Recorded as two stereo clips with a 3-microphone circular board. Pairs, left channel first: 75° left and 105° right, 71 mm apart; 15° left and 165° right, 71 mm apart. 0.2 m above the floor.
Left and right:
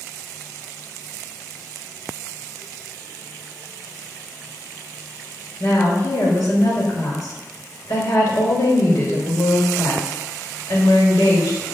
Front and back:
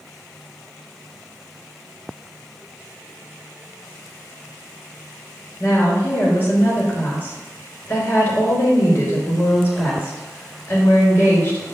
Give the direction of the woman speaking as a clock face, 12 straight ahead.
10 o'clock.